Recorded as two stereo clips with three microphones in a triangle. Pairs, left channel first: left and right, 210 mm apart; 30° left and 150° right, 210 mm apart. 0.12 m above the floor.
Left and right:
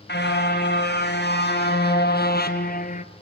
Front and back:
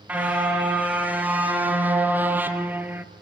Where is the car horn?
125° left, 5.5 m; by 3.1 s 135° left, 1.0 m.